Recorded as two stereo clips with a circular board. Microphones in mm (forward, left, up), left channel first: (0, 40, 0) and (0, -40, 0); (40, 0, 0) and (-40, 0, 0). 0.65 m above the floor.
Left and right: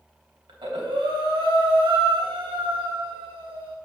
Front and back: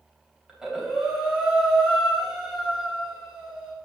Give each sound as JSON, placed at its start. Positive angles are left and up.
{"t": 0.5, "sound": "breathing", "azimuth_deg": -95, "distance_m": 3.0}